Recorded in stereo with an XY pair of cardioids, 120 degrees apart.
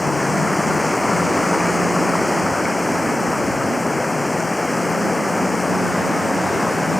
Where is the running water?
10° left.